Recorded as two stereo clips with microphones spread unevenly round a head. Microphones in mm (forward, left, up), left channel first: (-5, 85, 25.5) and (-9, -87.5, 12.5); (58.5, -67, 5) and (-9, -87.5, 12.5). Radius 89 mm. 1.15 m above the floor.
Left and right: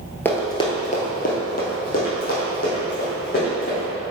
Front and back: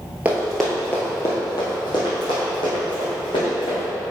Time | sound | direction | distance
0.2 | running footsteps | 155° left | 1.3 m